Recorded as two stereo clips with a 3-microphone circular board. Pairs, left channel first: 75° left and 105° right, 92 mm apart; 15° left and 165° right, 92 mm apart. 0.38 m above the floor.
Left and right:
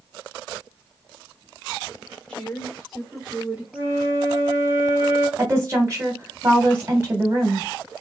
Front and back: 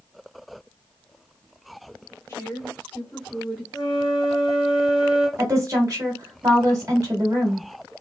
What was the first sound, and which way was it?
A woman speaking, 5° left.